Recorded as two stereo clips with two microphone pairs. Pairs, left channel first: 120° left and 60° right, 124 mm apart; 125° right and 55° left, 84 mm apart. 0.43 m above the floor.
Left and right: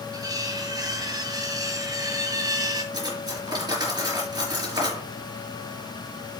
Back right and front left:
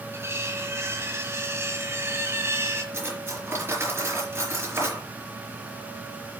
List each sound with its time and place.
0.1 s cutlery clinking: straight ahead, 2.0 m
2.9 s cutlery clinking: 5° right, 4 m